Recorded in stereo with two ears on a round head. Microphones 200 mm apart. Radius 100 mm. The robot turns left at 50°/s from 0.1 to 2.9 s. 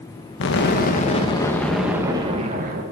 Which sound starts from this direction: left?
An explosion, at 0.4 s.